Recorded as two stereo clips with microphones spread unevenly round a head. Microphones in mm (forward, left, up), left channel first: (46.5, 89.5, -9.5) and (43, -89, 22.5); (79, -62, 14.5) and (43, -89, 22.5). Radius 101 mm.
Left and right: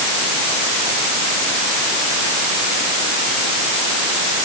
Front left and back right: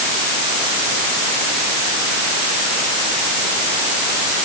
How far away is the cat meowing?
No cat meowing in this recording.